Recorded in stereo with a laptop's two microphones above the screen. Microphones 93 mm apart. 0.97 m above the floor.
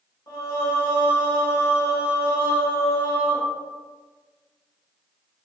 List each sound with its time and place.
0.3 s singing: 40° left (ahead or behind), 1.0 m